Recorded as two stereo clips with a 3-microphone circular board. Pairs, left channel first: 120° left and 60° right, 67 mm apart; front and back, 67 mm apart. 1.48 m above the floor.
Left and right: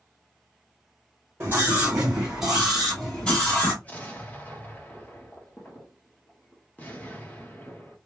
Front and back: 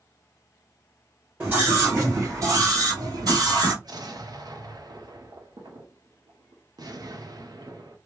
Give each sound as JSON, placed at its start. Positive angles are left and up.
{"t": 1.4, "sound": "a scream", "azimuth_deg": -120, "distance_m": 1.3}
{"t": 3.8, "sound": "an explosion", "azimuth_deg": -175, "distance_m": 0.9}